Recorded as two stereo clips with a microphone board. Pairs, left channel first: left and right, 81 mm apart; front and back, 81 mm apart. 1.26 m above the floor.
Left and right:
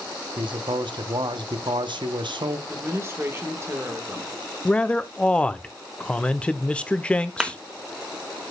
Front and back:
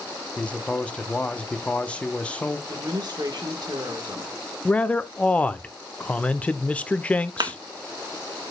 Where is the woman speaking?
145° right, 1.3 m.